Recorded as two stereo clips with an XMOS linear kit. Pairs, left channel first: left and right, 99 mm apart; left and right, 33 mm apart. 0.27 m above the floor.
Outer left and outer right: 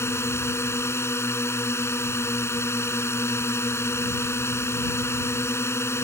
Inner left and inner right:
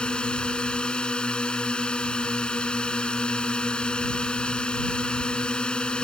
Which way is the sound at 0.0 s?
25° left (ahead or behind).